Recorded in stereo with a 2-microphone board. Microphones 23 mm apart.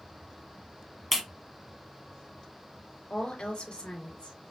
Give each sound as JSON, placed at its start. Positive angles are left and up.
{"t": 1.1, "sound": "a clap", "side_deg": -5, "distance_m": 1.0}
{"t": 3.1, "sound": "a woman speaking", "side_deg": 55, "distance_m": 3.0}